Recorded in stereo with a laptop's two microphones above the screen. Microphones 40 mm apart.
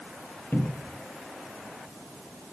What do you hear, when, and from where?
0.5 s a cupboard door: 60° left (ahead or behind), 0.6 m